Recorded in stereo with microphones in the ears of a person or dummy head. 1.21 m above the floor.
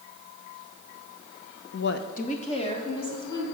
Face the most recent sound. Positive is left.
turn(degrees=25)  # may be behind; listen again after turning